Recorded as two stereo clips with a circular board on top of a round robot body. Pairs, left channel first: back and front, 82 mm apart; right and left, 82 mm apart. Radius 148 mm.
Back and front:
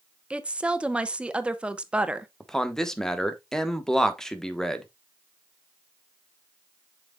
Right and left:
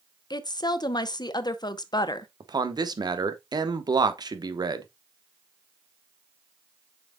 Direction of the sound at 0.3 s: 75° right.